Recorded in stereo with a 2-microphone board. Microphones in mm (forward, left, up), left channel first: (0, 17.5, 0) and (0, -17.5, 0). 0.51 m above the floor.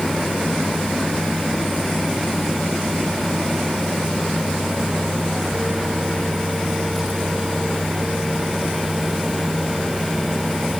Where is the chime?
I don't hear a chime.